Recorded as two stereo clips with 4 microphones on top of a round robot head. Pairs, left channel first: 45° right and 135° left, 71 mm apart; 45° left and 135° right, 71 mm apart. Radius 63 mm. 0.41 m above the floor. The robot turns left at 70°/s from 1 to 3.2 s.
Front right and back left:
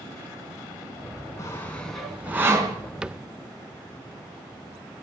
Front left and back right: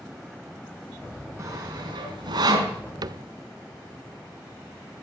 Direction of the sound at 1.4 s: 90° right.